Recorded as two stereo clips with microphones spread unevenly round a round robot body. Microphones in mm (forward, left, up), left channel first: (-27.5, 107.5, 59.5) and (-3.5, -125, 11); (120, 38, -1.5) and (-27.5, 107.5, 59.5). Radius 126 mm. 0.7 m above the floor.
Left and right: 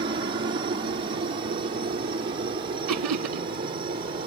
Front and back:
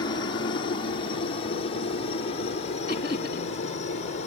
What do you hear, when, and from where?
0.0 s a helicopter: 35° right; by 4.3 s 25° right
2.9 s laughter: 90° right